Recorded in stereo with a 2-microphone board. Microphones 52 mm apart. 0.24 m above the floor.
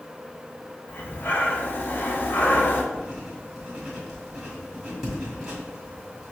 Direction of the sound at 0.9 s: 45° left (ahead or behind).